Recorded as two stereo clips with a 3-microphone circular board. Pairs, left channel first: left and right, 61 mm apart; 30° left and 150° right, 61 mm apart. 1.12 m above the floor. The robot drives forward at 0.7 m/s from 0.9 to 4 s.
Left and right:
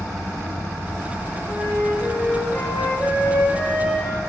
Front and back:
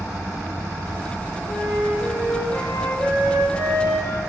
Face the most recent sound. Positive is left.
turn(degrees=75)